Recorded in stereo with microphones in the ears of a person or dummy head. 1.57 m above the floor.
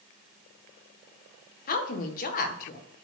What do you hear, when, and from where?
1.7 s a woman speaking: 50° left (ahead or behind), 1.5 m